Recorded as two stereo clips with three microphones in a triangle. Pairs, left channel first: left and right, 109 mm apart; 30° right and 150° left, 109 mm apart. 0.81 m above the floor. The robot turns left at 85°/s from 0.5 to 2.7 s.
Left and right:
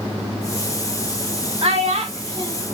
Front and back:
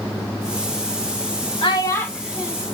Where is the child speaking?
70° right, 1.2 m; by 2.5 s 145° right, 1.2 m.